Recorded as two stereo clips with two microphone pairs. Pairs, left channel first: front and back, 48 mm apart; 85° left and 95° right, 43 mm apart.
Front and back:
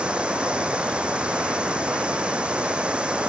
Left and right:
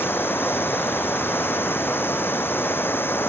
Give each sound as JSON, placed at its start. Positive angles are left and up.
{"t": 0.0, "sound": "running water", "azimuth_deg": 115}